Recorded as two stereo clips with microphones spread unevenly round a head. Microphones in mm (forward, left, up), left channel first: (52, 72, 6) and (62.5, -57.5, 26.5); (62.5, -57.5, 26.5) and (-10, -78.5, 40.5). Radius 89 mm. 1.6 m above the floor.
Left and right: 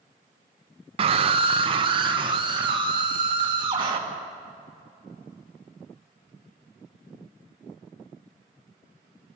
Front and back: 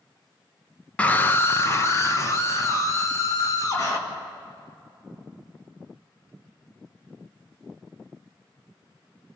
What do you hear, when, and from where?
1.0 s a scream: 60° right, 0.5 m; by 4.0 s 30° right, 2.5 m